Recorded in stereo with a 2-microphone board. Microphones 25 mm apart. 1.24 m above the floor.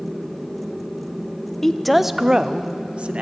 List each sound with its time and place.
1.6 s a woman speaking: 10° left (ahead or behind), 0.6 m; by 3.2 s 65° right (ahead or behind), 0.9 m